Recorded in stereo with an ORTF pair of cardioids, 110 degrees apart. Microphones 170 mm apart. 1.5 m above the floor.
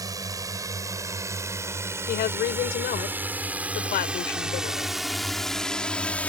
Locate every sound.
0.0 s a drone: 20° right; by 6.3 s 10° left
2.1 s a woman speaking: 70° left